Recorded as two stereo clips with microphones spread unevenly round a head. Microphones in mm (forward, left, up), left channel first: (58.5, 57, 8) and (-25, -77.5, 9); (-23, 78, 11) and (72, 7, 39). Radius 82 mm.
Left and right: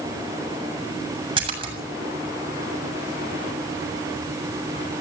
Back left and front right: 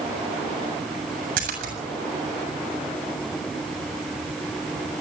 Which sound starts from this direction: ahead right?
A splash, at 1.4 s.